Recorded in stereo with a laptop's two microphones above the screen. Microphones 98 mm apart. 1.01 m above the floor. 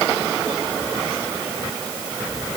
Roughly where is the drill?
I don't hear a drill.